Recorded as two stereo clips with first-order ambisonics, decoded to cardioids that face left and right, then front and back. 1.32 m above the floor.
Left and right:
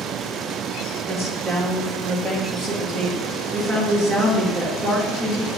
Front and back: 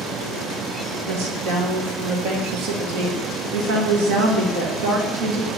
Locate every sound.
1.1 s a woman speaking: 175° right, 1.6 m